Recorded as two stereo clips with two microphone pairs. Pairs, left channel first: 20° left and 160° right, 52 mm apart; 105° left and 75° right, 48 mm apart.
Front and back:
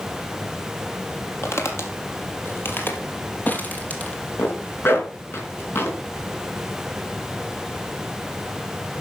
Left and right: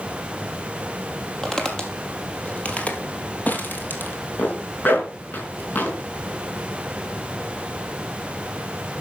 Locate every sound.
1.4 s footsteps: 30° left, 2.5 m; by 4.2 s 85° left, 2.5 m
4.4 s a zipper: 60° left, 3.5 m